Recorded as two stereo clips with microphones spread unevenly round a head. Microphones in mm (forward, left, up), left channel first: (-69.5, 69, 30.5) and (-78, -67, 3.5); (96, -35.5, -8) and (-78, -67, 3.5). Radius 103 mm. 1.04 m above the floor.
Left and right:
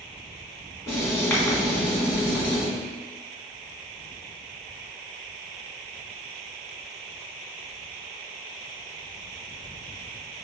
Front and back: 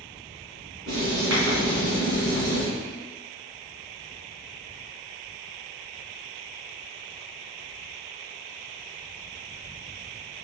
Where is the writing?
160° left, 2.0 m.